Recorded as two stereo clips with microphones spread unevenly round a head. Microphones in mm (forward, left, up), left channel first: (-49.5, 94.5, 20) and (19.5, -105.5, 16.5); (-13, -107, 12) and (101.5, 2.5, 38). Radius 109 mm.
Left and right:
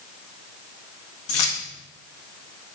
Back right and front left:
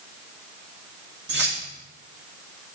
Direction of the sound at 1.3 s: 85° left.